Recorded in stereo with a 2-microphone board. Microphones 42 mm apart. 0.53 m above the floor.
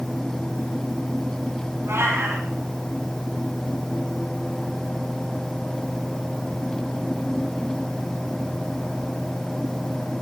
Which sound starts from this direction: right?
A cat meowing, at 1.9 s.